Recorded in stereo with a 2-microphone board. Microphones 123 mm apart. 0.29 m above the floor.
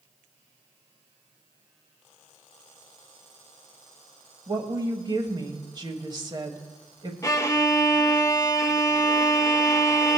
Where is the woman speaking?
35° right (ahead or behind), 1.2 m.